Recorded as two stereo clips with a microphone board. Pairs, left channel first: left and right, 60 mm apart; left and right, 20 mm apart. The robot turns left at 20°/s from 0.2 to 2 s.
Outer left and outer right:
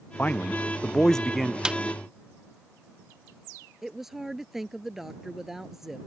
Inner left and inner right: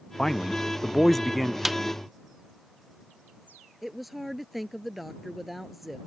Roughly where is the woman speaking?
Centre.